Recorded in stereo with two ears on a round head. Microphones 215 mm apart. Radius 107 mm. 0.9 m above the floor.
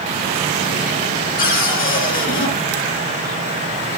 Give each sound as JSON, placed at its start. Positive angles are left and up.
{"t": 1.4, "sound": "a cupboard door", "side_deg": 40, "distance_m": 6.5}